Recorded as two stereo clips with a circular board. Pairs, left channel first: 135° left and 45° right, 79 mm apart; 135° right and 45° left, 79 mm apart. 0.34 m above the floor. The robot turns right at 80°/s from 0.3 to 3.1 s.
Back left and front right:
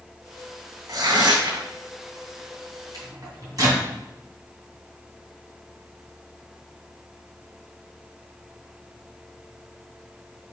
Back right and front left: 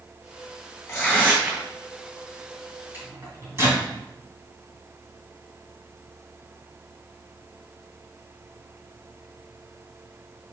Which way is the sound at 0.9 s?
85° right.